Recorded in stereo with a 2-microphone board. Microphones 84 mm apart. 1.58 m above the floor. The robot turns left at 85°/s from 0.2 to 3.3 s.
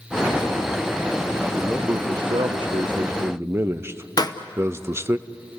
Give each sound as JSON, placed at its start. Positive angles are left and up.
{"t": 1.6, "sound": "a man speaking", "azimuth_deg": 0, "distance_m": 0.7}
{"t": 4.2, "sound": "a pop", "side_deg": 55, "distance_m": 0.9}